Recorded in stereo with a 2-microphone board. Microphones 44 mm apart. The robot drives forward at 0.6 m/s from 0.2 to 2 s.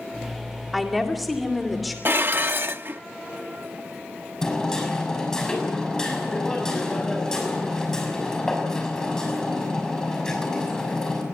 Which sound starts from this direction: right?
Dishes clattering, at 2.0 s.